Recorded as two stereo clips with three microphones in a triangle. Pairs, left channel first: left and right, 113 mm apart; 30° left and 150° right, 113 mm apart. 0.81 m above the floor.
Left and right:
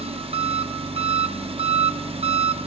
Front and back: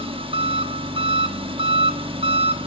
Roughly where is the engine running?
Behind right.